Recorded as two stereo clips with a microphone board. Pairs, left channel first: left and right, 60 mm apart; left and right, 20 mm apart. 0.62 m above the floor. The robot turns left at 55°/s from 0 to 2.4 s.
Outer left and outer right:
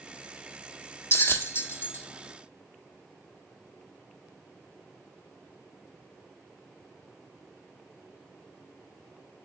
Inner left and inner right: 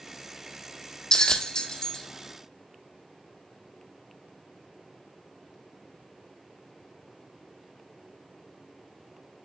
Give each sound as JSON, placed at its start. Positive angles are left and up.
{"t": 1.1, "sound": "a bell", "side_deg": 40, "distance_m": 1.0}